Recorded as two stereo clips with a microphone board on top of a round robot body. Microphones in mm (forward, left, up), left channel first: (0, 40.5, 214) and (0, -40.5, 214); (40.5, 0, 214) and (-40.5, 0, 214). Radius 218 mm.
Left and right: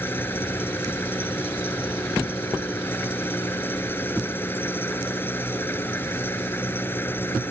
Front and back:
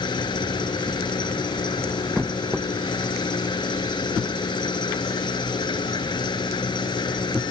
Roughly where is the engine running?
Ahead left.